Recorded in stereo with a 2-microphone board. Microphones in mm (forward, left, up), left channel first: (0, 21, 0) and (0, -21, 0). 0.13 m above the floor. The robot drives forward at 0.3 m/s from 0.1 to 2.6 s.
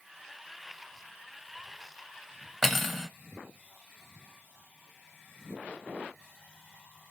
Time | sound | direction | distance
2.6 | cutlery clinking | 5° left (ahead or behind) | 0.7 m